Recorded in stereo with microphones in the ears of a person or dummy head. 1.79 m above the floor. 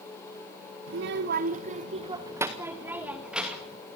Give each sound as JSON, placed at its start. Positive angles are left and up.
{"t": 0.9, "sound": "a child speaking", "side_deg": -55, "distance_m": 1.1}